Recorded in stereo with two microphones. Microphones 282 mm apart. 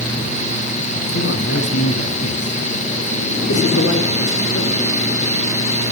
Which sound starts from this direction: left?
A man speaking, at 1.1 s.